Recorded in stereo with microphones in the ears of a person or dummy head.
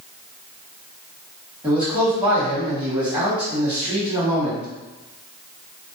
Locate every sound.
1.6 s a man speaking: 10° right (ahead or behind), 1.3 m